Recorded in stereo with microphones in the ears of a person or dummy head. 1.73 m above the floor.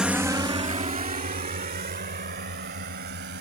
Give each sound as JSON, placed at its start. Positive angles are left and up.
{"t": 0.0, "sound": "a drone", "side_deg": 0}